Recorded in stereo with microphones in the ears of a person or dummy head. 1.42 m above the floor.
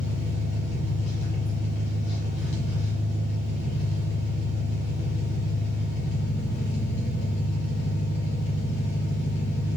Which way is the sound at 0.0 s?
65° left (ahead or behind).